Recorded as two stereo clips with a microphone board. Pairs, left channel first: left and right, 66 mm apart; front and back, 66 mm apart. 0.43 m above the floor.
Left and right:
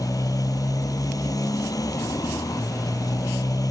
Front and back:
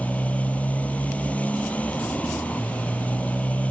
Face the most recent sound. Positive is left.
turn(degrees=70)